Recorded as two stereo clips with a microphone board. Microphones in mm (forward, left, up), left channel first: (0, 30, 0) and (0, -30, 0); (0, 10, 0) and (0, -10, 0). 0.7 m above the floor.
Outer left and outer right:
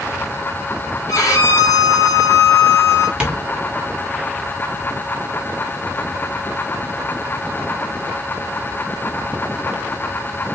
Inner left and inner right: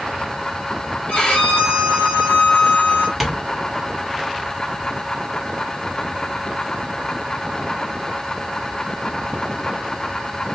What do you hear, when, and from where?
1.1 s a violin: 60° left (ahead or behind), 1.8 m
3.2 s tapping: 15° right (ahead or behind), 1.4 m